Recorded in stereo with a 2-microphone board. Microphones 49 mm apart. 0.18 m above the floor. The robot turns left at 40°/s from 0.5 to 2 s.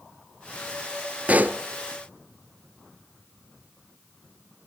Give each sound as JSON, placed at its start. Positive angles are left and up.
{"t": 1.3, "sound": "a pop", "side_deg": -30, "distance_m": 0.7}